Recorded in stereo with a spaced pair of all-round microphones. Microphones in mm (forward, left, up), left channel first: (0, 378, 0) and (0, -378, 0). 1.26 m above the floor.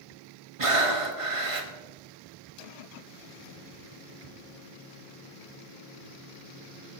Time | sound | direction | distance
0.6 | breathing | 45° right (ahead or behind) | 1.4 m